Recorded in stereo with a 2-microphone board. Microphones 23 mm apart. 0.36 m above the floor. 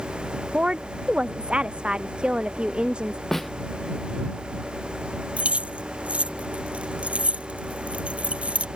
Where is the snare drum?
10° left (ahead or behind).